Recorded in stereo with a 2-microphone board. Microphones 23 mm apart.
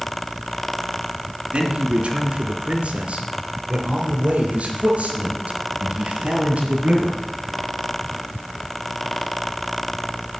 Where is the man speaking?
65° right (ahead or behind), 3 m; by 7.2 s 75° right (ahead or behind), 6 m.